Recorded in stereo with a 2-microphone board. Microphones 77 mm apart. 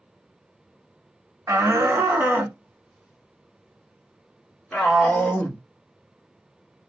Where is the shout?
40° right (ahead or behind), 1.4 m; by 5.6 s 5° left (ahead or behind), 3 m.